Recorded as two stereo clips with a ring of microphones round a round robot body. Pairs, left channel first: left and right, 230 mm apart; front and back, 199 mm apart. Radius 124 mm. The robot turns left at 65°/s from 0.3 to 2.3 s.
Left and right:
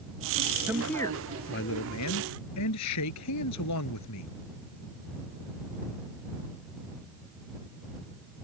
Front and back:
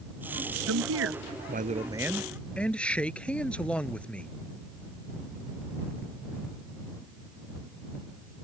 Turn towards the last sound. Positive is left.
turn(degrees=85)